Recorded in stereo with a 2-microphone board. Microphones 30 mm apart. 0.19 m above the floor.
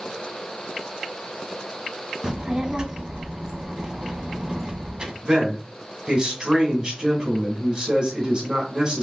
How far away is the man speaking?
About 1.7 m.